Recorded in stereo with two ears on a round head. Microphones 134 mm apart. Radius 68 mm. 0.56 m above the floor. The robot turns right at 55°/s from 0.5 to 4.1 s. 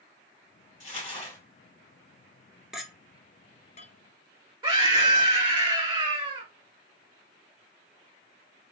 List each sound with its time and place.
0.8 s crumpling: 120° left, 2.5 m; by 1.4 s 155° left, 2.5 m
2.7 s a clink: 5° right (ahead or behind), 0.6 m; by 5.1 s 45° left (ahead or behind), 0.6 m
4.6 s a scream: 30° right (ahead or behind), 1.4 m